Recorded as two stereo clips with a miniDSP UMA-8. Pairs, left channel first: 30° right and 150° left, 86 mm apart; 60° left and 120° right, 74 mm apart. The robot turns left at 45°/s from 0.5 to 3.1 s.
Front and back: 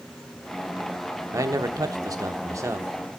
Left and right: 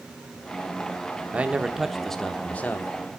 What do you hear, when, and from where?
1.3 s a man speaking: 175° left, 0.8 m; by 2.9 s 105° left, 0.8 m